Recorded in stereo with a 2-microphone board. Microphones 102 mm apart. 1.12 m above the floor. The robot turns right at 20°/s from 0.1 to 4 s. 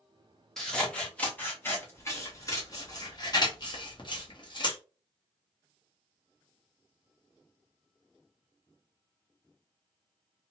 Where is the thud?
No thud in this recording.